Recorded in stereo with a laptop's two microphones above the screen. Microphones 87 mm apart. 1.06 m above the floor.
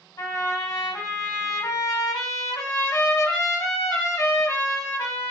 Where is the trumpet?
40° left (ahead or behind), 1.7 m.